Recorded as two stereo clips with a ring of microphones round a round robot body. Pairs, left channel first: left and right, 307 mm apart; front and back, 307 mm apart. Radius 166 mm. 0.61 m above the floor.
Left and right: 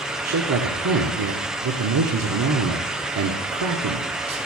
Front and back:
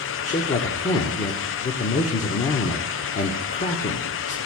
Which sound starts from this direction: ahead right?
A man speaking, at 0.2 s.